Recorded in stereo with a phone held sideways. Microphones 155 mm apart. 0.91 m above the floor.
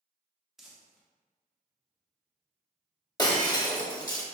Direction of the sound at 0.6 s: Centre (ahead or behind).